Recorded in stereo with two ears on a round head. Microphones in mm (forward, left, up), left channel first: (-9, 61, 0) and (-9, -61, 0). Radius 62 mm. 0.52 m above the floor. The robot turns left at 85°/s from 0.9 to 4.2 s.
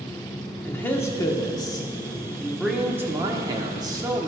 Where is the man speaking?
15° left (ahead or behind), 1.0 m; by 4.3 s 20° right (ahead or behind), 1.0 m.